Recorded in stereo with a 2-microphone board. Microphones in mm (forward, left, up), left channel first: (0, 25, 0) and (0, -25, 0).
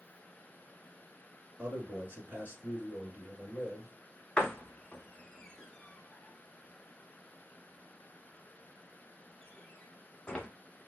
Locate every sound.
1.6 s a man speaking: 40° right (ahead or behind), 1.6 m
4.4 s a door slam: 15° left (ahead or behind), 0.8 m